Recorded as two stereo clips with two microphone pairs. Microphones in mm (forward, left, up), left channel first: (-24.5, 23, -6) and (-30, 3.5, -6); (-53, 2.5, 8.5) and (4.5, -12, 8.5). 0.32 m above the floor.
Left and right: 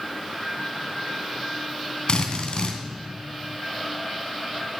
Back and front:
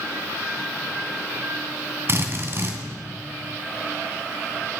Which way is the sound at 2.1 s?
30° left.